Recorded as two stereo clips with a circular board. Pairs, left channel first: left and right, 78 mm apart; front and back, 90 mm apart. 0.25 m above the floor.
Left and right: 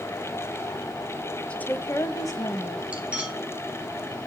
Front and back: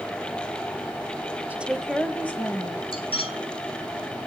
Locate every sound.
1.5 s a woman speaking: 140° left, 1.0 m; by 2.8 s 60° left, 1.8 m
2.9 s cutlery clinking: 15° right, 2.5 m